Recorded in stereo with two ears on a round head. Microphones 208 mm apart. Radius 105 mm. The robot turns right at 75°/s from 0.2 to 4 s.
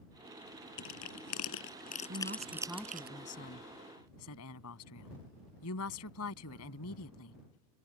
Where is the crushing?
55° left (ahead or behind); by 3.1 s 45° right (ahead or behind).